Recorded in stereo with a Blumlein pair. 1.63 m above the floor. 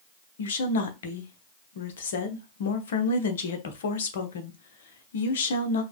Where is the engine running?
I don't hear an engine running.